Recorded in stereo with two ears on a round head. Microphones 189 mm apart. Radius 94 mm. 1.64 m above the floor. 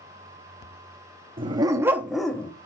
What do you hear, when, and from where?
1.4 s a dog barking: 25° right (ahead or behind), 1.1 m; by 2.5 s 10° left (ahead or behind), 1.0 m